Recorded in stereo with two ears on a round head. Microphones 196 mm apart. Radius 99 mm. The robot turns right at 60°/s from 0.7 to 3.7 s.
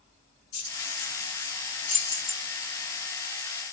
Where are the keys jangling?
75° left (ahead or behind), 2 m; by 2.4 s centre (ahead or behind), 2 m.